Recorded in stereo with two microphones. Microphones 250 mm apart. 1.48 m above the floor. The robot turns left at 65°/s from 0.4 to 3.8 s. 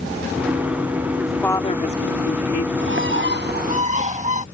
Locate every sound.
1.2 s a woman speaking: 170° right; by 2.7 s 90° left
2.8 s a bird: 75° right; by 4.5 s 140° right